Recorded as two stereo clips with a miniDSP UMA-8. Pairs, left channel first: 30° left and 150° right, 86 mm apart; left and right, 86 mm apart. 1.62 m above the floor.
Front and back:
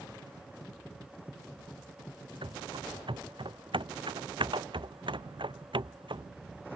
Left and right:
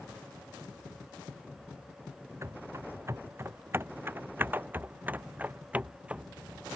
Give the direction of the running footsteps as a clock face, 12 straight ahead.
5 o'clock.